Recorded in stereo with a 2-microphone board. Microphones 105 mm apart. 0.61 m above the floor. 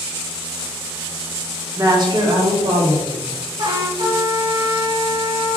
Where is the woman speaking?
30° right (ahead or behind), 0.8 m; by 3.2 s 50° right (ahead or behind), 1.3 m.